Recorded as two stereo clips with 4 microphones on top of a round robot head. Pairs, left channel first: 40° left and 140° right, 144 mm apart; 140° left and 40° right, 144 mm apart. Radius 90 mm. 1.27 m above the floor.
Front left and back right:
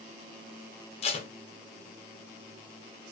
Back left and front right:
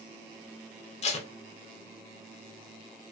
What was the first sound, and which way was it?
Tape being pulled, 90° left.